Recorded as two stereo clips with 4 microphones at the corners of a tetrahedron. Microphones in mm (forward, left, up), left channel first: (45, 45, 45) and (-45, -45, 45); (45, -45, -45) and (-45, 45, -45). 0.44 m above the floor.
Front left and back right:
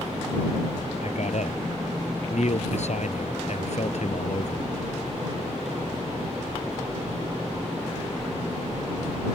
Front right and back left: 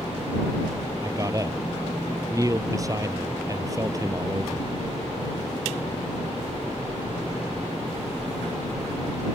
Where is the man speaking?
70° left.